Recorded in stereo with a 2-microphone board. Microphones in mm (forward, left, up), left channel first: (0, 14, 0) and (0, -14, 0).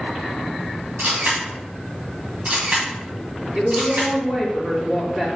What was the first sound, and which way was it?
A camera shutter, 55° right (ahead or behind).